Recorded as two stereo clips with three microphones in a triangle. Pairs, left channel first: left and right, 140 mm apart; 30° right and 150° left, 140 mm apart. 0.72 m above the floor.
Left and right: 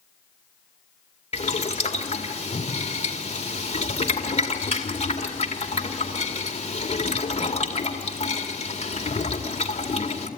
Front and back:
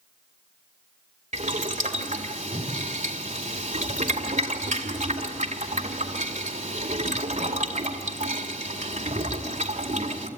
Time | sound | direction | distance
1.3 | boiling | 125° left | 2 m